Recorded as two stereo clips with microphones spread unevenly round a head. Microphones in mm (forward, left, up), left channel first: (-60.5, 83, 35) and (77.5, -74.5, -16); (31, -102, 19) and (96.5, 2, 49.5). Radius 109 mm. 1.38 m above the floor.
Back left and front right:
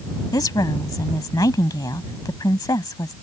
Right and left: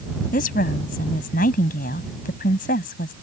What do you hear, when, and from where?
0.3 s a woman speaking: 155° right